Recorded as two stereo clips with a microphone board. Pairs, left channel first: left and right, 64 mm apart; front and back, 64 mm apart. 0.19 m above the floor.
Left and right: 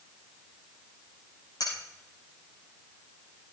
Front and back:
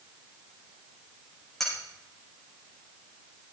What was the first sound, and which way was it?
Cutlery clinking, 85° left.